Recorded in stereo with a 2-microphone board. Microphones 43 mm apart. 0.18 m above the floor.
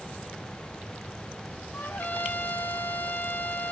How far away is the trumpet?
About 1.3 m.